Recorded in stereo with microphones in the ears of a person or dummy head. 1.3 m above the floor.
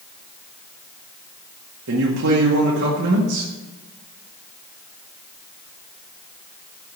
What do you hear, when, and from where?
1.9 s a man speaking: 75° right (ahead or behind), 2.0 m